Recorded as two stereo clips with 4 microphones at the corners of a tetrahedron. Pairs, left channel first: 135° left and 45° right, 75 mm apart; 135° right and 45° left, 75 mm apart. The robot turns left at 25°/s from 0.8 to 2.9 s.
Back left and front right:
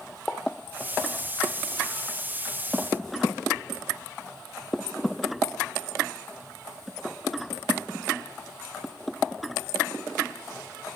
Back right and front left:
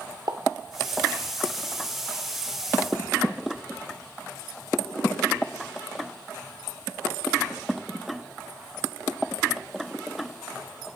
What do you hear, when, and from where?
0.3 s a pop: 55° left, 1.8 m